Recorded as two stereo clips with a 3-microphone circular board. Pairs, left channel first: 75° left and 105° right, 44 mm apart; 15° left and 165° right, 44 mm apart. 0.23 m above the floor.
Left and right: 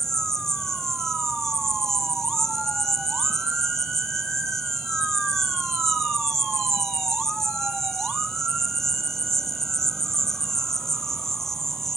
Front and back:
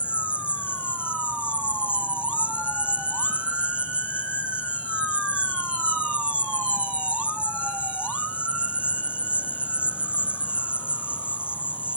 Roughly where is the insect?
Behind left.